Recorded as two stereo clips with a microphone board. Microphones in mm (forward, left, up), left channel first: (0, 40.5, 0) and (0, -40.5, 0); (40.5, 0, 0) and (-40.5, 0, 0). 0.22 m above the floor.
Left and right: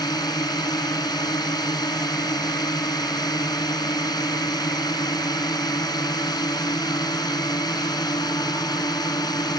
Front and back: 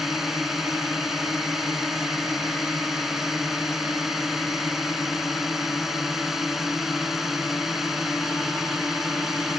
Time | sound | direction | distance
0.0 | a drone | 95° left | ?